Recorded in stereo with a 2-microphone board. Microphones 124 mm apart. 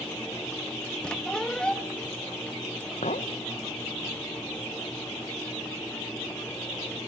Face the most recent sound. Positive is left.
turn(degrees=70)  # may be behind; listen again after turning